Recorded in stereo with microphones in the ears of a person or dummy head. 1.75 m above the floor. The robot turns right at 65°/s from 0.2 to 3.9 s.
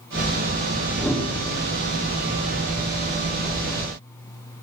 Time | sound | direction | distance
1.0 | a whoosh | 5° left (ahead or behind) | 3.5 m